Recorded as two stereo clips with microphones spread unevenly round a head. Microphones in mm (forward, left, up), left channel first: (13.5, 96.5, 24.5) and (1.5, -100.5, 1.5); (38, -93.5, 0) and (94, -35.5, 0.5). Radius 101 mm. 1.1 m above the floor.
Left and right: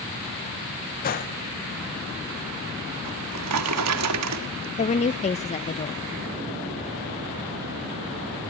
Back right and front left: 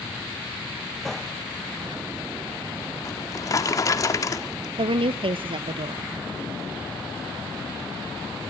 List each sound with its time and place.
1.0 s a gunshot: 135° left, 0.8 m
3.0 s a drawer: 85° right, 1.6 m
4.8 s a woman speaking: 25° left, 0.6 m